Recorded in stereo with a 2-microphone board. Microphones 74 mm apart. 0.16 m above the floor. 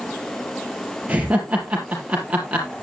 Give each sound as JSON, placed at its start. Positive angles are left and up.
{"t": 1.1, "sound": "laughter", "side_deg": -20, "distance_m": 3.5}